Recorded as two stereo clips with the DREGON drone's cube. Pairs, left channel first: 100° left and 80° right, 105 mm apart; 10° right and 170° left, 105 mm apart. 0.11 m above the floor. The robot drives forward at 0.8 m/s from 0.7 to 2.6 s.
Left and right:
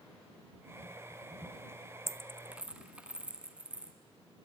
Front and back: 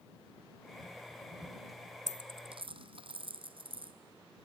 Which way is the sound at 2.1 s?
140° right.